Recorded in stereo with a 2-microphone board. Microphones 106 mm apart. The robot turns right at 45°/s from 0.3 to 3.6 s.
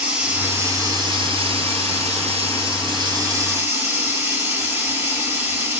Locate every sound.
0.0 s running water: 165° right, 1.3 m; by 5.8 s 20° right, 1.3 m